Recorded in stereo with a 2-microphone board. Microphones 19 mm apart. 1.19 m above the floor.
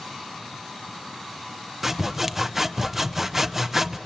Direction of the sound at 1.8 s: 10° right (ahead or behind).